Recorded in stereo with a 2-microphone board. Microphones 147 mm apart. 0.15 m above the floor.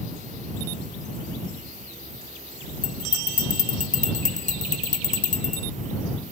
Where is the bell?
60° left (ahead or behind).